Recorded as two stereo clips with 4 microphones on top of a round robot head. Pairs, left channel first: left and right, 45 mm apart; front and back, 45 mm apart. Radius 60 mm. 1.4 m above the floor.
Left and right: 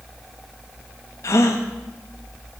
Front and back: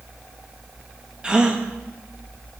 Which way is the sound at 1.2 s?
105° left.